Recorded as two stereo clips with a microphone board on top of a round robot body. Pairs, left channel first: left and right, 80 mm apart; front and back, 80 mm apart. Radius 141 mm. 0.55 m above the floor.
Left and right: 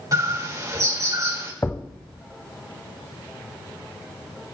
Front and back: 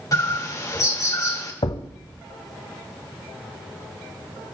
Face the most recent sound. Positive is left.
turn(degrees=25)